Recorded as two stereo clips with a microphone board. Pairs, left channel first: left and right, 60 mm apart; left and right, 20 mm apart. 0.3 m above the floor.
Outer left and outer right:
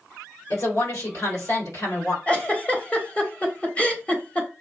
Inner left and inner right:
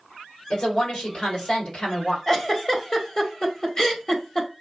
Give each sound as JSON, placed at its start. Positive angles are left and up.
{"t": 0.5, "sound": "a woman speaking", "side_deg": 60, "distance_m": 3.0}
{"t": 2.3, "sound": "a giggle", "side_deg": 20, "distance_m": 1.0}